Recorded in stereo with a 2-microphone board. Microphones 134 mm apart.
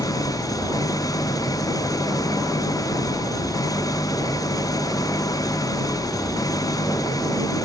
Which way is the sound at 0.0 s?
25° left (ahead or behind).